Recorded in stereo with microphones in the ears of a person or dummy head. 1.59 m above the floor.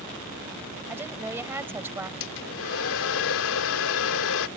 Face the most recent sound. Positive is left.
turn(degrees=70)  # may be behind; listen again after turning